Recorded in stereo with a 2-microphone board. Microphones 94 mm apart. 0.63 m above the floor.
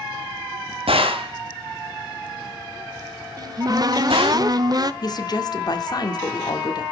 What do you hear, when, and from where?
0.9 s a gunshot: 85° right, 1.6 m
3.4 s a cupboard door: 45° right (ahead or behind), 0.6 m
5.0 s a woman speaking: 45° left (ahead or behind), 1.3 m